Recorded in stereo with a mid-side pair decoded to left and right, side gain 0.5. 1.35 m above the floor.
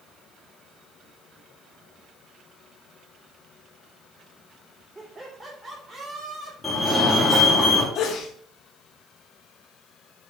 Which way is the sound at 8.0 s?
60° left.